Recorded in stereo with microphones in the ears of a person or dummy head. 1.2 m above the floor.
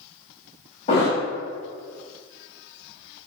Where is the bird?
No bird in this recording.